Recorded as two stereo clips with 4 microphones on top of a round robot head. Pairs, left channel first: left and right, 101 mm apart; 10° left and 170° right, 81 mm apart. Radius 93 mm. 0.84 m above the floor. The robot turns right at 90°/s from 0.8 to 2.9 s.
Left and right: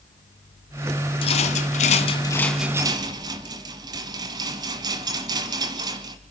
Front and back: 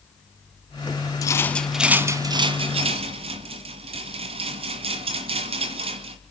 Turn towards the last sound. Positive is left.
turn(degrees=-150)